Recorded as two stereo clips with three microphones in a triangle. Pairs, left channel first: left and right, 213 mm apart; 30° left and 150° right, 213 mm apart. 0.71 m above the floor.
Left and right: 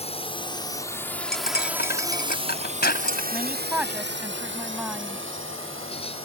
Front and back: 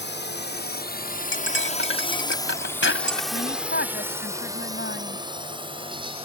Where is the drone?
35° left; by 6.2 s 90° right.